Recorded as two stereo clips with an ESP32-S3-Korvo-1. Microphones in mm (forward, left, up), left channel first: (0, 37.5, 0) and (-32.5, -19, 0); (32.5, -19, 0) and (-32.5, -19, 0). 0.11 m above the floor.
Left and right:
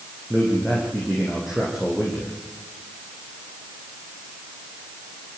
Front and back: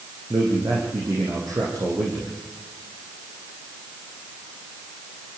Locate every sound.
0.3 s a man speaking: 155° left, 6 m